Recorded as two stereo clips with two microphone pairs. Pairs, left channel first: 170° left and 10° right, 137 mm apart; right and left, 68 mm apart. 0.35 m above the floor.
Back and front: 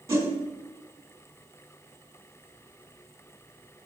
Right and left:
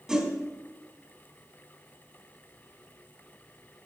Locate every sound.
0.1 s a whoosh: 25° left, 1.6 m